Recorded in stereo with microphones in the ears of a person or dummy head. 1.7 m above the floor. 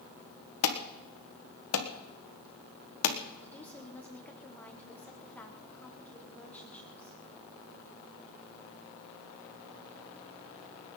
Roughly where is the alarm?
Left.